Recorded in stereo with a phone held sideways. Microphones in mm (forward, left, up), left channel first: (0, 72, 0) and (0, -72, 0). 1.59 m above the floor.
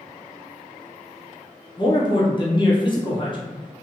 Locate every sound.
1.8 s a man speaking: 35° left (ahead or behind), 0.8 m